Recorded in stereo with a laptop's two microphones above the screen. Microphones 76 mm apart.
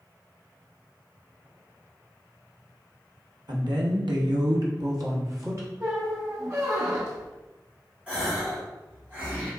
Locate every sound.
3.5 s a woman speaking: 65° right (ahead or behind), 0.8 m; by 5.7 s 45° right (ahead or behind), 1.2 m
5.8 s a squeak: 35° right (ahead or behind), 0.7 m
8.1 s a gasp: 20° right (ahead or behind), 1.6 m